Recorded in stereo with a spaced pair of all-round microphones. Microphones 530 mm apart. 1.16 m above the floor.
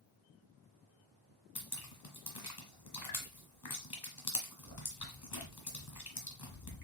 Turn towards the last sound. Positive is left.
turn(degrees=45)  # may be behind; listen again after turning